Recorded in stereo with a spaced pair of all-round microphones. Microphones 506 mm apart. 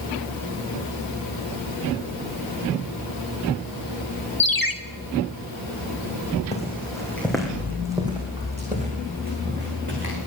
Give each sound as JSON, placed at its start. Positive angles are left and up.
{"t": 4.4, "sound": "a ringtone", "side_deg": 40, "distance_m": 1.1}
{"t": 6.5, "sound": "footsteps", "side_deg": 15, "distance_m": 4.5}